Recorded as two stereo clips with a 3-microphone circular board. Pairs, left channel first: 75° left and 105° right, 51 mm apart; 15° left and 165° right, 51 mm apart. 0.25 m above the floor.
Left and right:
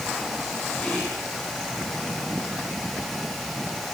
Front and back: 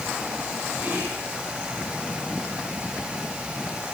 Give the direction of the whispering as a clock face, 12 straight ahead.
7 o'clock.